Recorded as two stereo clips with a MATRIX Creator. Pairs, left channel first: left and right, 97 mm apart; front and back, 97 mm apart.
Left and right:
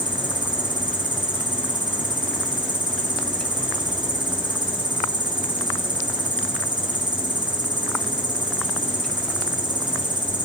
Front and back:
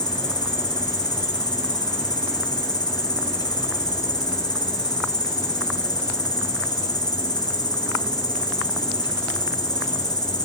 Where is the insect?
50° right, 1.7 m.